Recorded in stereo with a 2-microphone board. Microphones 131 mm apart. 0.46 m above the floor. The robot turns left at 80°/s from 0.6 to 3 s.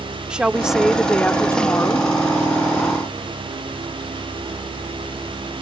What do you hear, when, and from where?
0.3 s a woman speaking: 5° right (ahead or behind); by 2.1 s 20° left (ahead or behind)